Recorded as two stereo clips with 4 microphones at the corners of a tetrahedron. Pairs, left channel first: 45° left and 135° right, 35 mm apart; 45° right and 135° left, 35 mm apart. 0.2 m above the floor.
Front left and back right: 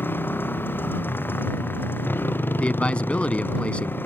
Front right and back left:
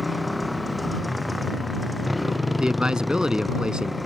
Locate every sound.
0.0 s a motorcycle: 50° left
2.6 s a man speaking: 80° left